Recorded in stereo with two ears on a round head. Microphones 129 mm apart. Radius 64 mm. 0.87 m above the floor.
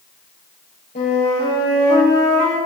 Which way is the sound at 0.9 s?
60° left (ahead or behind).